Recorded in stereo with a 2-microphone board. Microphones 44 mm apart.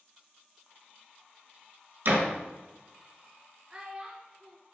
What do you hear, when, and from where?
2.0 s a door slam: 55° right (ahead or behind), 1.4 m
3.7 s a child speaking: 20° right (ahead or behind), 0.6 m